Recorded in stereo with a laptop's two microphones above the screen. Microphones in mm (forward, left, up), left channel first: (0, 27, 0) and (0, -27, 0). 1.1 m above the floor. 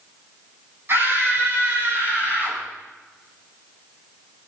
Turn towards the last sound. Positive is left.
turn(degrees=-25)  # may be behind; listen again after turning